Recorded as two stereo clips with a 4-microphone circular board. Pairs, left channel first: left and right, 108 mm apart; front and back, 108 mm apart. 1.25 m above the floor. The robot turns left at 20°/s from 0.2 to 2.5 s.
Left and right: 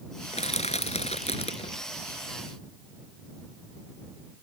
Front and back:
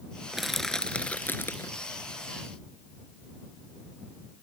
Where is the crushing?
90° left; by 1.7 s 65° left.